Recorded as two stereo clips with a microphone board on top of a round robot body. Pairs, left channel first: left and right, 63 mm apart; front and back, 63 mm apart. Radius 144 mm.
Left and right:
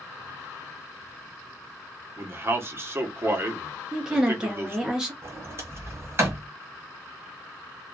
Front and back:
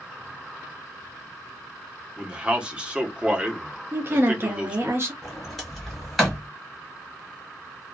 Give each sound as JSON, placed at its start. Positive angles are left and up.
{"t": 2.2, "sound": "a man speaking", "azimuth_deg": -115, "distance_m": 1.0}
{"t": 3.9, "sound": "a woman speaking", "azimuth_deg": -165, "distance_m": 0.8}
{"t": 5.2, "sound": "a sliding door", "azimuth_deg": -90, "distance_m": 1.6}